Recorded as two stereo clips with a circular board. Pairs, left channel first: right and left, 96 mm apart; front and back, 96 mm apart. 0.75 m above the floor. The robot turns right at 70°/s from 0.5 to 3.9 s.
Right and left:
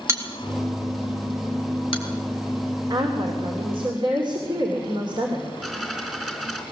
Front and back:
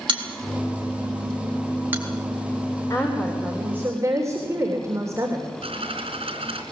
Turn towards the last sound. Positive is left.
turn(degrees=175)